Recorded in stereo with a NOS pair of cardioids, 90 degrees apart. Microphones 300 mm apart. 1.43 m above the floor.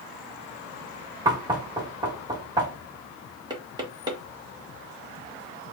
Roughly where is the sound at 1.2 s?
Ahead.